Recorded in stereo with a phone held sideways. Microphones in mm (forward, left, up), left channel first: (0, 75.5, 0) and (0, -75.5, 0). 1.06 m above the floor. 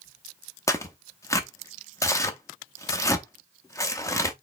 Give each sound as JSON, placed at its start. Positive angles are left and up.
{"t": 0.7, "sound": "tearing paper", "side_deg": 20, "distance_m": 0.7}